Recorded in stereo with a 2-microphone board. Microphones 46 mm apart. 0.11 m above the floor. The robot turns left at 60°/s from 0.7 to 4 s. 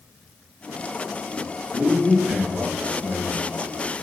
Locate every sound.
1.7 s a man speaking: 60° right, 1.4 m; by 4.0 s 165° left, 1.4 m